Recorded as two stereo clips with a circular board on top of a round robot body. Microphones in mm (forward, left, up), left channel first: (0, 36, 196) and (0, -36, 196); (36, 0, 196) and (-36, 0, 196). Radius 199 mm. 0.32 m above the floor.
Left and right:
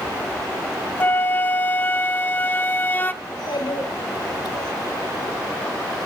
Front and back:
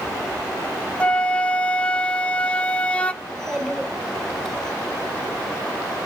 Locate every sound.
1.0 s a flute: 60° left, 1.0 m
3.2 s a child speaking: 85° left, 2 m